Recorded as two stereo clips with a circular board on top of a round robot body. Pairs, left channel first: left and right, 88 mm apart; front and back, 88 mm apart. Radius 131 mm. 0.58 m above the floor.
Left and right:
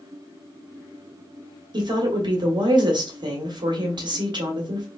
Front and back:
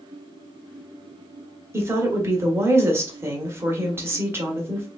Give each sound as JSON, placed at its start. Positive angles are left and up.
{"t": 1.7, "sound": "a woman speaking", "azimuth_deg": -120, "distance_m": 1.5}